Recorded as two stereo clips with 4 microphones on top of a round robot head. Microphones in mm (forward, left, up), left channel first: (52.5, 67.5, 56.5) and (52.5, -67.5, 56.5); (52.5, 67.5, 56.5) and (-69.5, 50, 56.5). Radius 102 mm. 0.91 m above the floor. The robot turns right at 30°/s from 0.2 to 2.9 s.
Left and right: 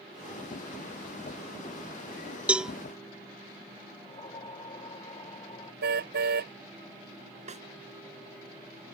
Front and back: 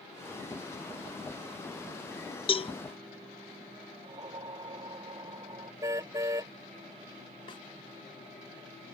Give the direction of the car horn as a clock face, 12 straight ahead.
3 o'clock.